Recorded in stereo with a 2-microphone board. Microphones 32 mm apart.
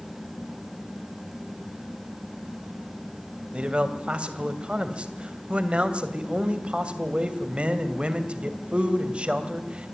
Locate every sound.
3.5 s a man speaking: 35° right (ahead or behind), 2.5 m